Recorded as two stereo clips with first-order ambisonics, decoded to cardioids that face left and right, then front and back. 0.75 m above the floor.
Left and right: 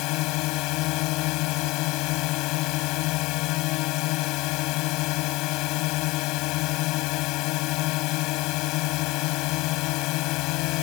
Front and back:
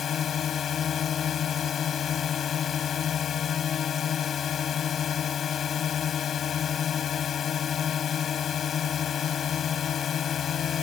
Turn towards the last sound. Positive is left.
turn(degrees=60)